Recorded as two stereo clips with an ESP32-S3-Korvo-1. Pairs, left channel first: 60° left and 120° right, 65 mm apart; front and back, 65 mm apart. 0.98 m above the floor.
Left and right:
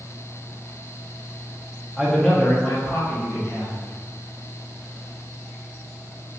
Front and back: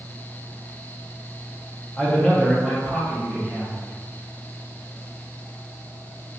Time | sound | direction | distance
2.0 | a man speaking | 45° right | 0.5 m